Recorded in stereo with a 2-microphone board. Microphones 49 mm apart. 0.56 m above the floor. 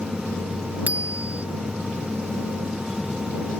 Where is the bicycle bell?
30° right (ahead or behind).